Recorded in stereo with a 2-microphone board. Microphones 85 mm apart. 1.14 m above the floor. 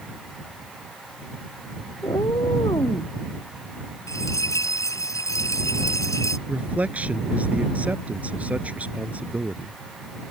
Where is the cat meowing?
60° left (ahead or behind); by 3.1 s 55° left (ahead or behind).